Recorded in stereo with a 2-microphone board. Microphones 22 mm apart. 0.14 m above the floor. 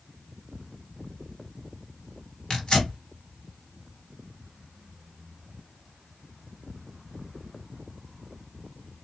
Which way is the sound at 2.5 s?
40° left (ahead or behind).